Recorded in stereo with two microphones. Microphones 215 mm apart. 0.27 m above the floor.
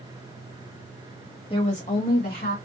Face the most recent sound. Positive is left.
turn(degrees=50)  # may be behind; listen again after turning